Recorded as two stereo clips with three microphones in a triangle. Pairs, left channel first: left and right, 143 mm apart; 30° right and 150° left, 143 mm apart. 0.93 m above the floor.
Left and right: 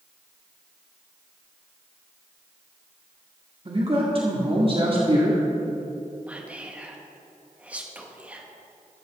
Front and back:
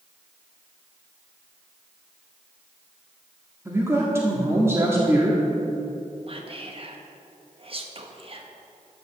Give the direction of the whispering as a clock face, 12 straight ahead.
6 o'clock.